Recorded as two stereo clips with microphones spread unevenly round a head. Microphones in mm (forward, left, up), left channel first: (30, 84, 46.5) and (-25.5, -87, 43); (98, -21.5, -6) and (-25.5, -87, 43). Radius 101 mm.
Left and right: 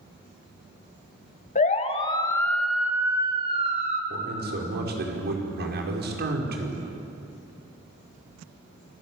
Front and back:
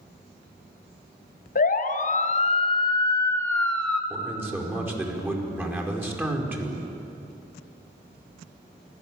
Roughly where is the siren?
Ahead left.